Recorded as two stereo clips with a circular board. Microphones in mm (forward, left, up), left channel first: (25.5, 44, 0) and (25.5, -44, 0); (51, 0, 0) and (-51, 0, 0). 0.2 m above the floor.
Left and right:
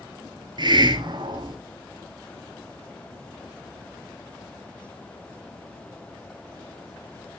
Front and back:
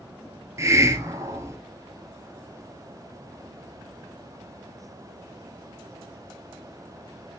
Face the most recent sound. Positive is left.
turn(degrees=-120)